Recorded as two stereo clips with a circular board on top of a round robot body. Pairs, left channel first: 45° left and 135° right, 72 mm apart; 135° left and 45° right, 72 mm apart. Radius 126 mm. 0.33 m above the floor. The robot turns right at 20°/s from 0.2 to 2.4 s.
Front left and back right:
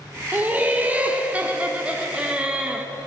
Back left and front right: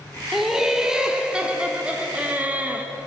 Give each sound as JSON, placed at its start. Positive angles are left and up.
{"t": 0.3, "sound": "laughter", "azimuth_deg": -125, "distance_m": 0.9}